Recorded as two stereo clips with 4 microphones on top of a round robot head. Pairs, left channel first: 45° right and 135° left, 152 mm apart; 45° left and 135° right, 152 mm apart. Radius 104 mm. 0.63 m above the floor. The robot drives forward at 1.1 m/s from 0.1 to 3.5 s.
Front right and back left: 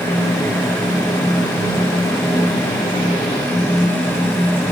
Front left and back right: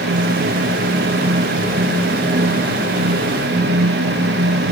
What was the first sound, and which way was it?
Only background noise.